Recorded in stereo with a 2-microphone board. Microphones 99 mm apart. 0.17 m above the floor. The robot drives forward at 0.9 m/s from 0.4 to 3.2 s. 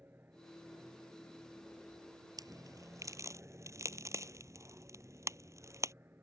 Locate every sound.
0.0 s an aircraft: 20° right (ahead or behind); by 6.2 s 25° right (ahead or behind)
2.4 s a crack: 45° right (ahead or behind); by 5.9 s 35° right (ahead or behind)